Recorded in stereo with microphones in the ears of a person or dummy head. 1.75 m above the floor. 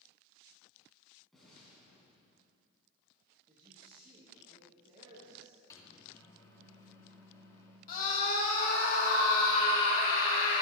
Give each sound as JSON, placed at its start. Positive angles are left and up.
{"t": 1.3, "sound": "an explosion", "side_deg": 0, "distance_m": 6.0}
{"t": 3.5, "sound": "a man speaking", "side_deg": -35, "distance_m": 2.5}
{"t": 5.7, "sound": "a microwave", "side_deg": 20, "distance_m": 2.5}
{"t": 7.9, "sound": "a scream", "side_deg": 50, "distance_m": 2.5}